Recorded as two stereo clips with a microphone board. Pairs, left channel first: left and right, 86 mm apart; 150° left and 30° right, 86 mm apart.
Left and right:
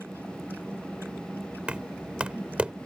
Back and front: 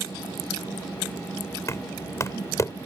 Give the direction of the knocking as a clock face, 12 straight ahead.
6 o'clock.